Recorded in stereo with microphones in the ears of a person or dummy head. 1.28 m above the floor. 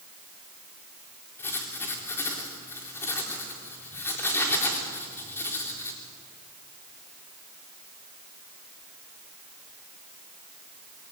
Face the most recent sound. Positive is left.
turn(degrees=15)  # may be behind; listen again after turning